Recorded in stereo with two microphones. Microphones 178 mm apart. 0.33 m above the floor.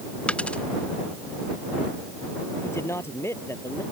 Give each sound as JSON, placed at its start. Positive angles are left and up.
{"t": 0.3, "sound": "a dropped coin", "side_deg": 5}
{"t": 2.6, "sound": "a man speaking", "side_deg": 15}